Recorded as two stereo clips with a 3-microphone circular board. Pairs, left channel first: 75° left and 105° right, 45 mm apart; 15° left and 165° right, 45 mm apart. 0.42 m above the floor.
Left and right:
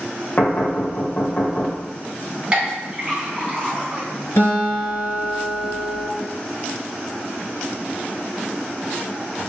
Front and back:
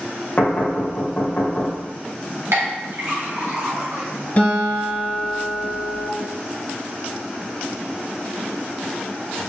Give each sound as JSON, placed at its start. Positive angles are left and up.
{"t": 0.4, "sound": "knocking", "azimuth_deg": 55, "distance_m": 1.3}
{"t": 2.5, "sound": "a clink", "azimuth_deg": -170, "distance_m": 1.7}
{"t": 4.4, "sound": "a guitar", "azimuth_deg": 70, "distance_m": 1.8}